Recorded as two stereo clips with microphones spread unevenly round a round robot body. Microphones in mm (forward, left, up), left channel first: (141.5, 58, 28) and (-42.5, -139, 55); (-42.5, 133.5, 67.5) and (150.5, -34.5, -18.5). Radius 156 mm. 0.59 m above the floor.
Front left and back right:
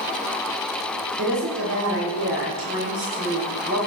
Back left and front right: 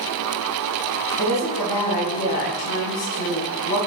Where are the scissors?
I don't hear scissors.